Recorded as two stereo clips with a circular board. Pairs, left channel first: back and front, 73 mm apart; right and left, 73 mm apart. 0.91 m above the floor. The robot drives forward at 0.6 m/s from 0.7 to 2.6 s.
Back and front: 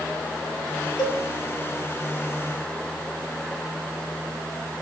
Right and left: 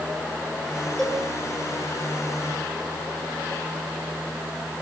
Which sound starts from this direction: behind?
A cowbell, at 1.0 s.